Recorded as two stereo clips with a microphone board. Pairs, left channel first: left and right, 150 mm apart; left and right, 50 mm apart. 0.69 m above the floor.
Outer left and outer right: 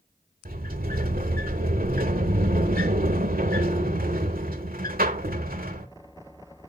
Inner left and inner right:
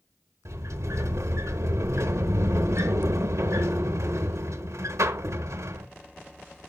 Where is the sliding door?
85° right, 1.0 m.